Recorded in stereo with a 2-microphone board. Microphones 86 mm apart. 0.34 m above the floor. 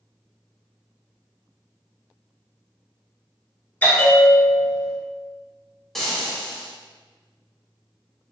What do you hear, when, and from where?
3.8 s a bell: 20° left (ahead or behind), 0.7 m
6.0 s frying: 5° left (ahead or behind), 0.9 m